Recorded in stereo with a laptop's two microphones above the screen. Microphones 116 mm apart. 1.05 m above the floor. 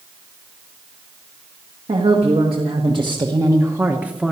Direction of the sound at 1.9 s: 60° right (ahead or behind).